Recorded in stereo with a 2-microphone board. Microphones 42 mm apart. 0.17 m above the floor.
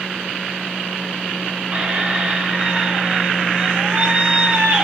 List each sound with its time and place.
1.7 s a squeak: 25° right (ahead or behind), 1.0 m